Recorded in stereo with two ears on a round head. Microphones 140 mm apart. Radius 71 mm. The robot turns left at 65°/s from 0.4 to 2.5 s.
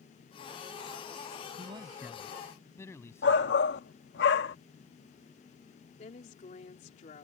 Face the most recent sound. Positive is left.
turn(degrees=45)  # may be behind; listen again after turning